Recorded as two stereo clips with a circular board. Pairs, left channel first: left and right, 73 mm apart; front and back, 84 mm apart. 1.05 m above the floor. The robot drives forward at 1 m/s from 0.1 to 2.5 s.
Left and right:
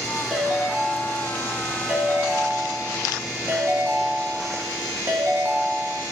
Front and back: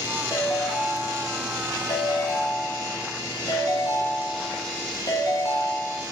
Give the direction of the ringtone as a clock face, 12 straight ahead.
12 o'clock.